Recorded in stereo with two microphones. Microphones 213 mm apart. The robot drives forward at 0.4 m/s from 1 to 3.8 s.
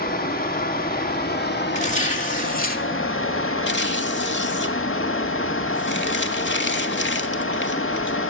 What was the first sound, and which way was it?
Running water, 45° left (ahead or behind).